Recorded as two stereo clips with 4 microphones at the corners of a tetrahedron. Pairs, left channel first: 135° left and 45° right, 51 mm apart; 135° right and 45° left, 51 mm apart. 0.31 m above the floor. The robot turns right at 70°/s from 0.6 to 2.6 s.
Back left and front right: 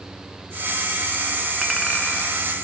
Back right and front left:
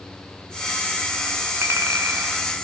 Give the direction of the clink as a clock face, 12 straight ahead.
11 o'clock.